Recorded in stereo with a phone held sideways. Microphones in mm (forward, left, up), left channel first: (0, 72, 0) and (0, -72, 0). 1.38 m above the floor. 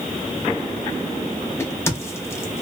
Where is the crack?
15° left (ahead or behind), 0.7 m.